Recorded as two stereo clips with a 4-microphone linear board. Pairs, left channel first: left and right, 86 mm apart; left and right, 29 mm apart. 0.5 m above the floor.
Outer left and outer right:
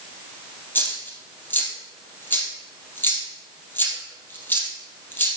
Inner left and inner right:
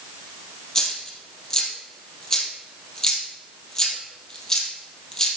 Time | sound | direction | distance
0.8 | a dropped coin | 20° left (ahead or behind) | 2.5 m